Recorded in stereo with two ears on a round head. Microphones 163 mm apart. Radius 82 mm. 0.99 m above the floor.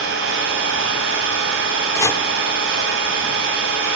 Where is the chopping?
15° left (ahead or behind), 0.9 m.